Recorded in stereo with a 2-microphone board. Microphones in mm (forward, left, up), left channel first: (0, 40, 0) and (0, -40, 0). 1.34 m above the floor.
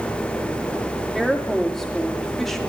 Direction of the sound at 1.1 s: 5° left (ahead or behind).